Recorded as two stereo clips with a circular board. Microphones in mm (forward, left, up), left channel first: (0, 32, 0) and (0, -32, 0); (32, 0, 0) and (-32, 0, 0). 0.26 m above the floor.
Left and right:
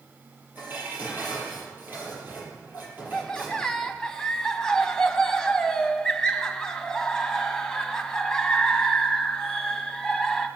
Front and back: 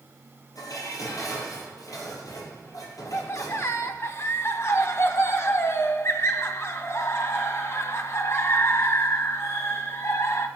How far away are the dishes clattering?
About 4.5 m.